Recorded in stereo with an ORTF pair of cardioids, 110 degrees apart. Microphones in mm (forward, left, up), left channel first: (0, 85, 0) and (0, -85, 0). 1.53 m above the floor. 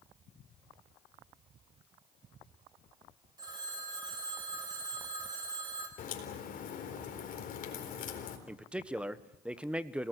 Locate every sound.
3.4 s a phone ringing: 25° right, 5.5 m
6.0 s a crack: 50° left, 4 m
8.5 s a man speaking: 5° right, 1.3 m